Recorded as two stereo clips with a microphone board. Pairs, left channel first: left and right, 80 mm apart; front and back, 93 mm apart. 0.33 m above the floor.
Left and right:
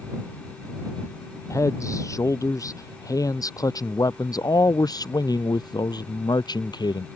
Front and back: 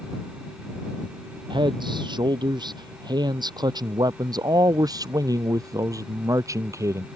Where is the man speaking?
140° left; by 7.1 s 120° left.